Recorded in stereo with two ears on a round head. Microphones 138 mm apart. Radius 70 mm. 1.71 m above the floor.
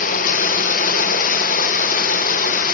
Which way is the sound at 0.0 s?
55° left (ahead or behind).